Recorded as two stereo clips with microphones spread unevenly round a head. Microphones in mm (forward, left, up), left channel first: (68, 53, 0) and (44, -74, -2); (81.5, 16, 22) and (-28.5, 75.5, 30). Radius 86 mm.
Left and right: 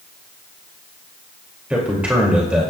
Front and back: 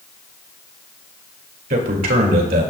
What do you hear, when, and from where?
1.7 s a man speaking: 175° left, 2.5 m